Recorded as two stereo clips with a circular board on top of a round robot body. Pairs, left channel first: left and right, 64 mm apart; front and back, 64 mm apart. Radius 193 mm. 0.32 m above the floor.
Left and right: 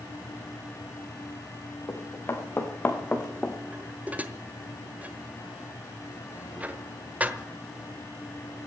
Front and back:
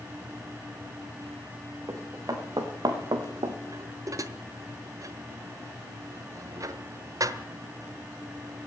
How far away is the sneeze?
I don't hear a sneeze.